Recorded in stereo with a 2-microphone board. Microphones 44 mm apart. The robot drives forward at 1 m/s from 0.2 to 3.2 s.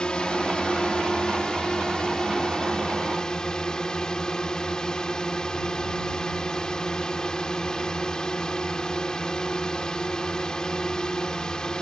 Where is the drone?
20° left (ahead or behind); by 11.8 s 15° left (ahead or behind).